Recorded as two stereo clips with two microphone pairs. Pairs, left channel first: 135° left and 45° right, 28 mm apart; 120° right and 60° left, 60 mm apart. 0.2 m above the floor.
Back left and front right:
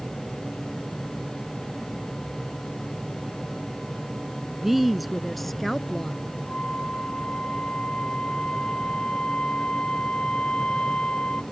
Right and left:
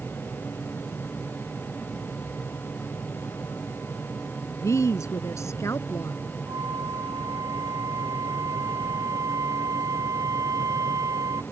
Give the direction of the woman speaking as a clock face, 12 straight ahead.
4 o'clock.